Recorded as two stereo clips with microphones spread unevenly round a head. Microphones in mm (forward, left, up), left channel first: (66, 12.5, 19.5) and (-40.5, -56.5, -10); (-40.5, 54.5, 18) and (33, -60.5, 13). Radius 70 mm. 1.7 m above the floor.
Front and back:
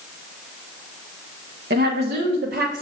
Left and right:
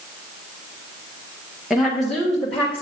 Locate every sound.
1.7 s a woman speaking: 145° right, 1.2 m; by 2.8 s 155° right, 1.9 m